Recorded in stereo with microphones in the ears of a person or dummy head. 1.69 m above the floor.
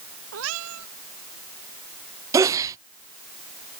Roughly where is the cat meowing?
Right.